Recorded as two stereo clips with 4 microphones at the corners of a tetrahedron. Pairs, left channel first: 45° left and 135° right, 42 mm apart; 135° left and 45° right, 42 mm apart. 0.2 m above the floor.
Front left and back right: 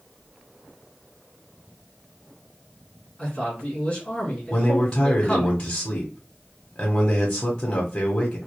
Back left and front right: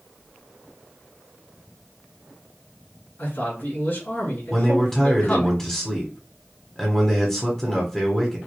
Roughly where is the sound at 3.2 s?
Behind left.